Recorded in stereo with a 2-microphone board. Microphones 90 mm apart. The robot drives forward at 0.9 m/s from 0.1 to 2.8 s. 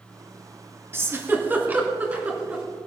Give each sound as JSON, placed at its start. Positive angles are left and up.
{"t": 0.9, "sound": "a giggle", "side_deg": -30, "distance_m": 1.6}